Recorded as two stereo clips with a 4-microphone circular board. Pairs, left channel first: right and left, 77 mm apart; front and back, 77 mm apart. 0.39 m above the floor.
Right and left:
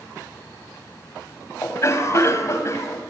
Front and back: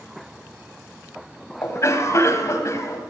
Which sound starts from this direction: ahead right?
A cough, at 1.6 s.